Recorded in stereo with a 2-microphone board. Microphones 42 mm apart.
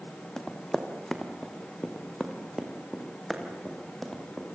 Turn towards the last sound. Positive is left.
turn(degrees=0)  # may be behind; listen again after turning